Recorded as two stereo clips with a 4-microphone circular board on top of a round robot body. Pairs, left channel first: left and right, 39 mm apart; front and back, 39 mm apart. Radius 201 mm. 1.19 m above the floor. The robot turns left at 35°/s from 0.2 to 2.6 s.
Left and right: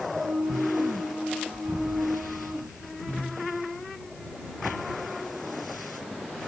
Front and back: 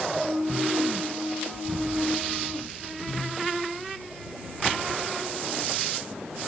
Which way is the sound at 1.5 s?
170° right.